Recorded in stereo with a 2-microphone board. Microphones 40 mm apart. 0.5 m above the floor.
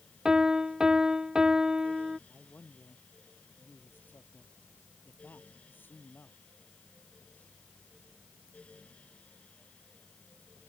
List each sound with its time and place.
0.2 s a piano: 15° right (ahead or behind)
2.3 s a man speaking: 60° left (ahead or behind)